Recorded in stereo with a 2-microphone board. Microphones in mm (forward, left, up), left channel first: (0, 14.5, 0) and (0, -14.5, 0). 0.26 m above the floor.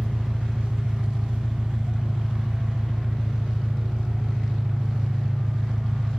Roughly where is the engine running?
Right.